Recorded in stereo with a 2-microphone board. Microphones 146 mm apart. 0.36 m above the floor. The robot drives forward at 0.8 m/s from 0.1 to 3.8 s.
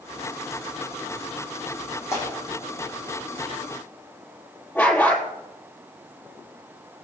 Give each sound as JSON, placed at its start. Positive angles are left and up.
{"t": 2.1, "sound": "tearing paper", "side_deg": 20, "distance_m": 9.0}
{"t": 4.8, "sound": "a dog barking", "side_deg": 15, "distance_m": 4.0}